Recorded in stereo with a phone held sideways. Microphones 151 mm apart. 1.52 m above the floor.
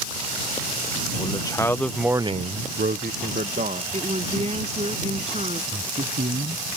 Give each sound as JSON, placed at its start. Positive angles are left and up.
{"t": 1.2, "sound": "a man speaking", "side_deg": 30}
{"t": 3.9, "sound": "a woman speaking", "side_deg": -45}
{"t": 5.7, "sound": "a man speaking", "side_deg": -85}